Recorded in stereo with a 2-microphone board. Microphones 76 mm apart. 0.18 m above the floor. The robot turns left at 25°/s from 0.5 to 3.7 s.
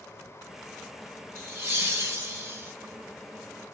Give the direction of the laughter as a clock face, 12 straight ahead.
2 o'clock.